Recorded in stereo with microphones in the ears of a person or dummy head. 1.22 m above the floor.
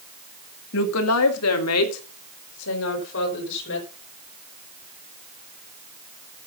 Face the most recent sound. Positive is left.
turn(degrees=65)  # may be behind; listen again after turning